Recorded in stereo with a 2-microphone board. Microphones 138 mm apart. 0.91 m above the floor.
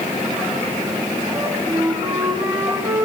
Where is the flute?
20° right (ahead or behind), 3 m.